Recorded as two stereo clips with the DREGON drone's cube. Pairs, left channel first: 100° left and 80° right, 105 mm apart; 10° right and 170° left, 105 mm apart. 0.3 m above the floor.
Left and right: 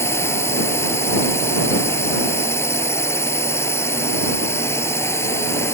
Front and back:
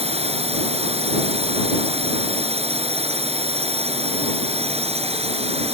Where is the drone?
165° left.